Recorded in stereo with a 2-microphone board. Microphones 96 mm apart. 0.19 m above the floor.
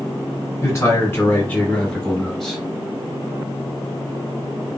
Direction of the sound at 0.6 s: 30° left (ahead or behind).